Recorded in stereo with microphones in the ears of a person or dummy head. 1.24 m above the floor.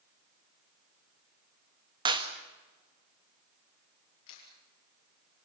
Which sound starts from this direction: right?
A clap, at 2.0 s.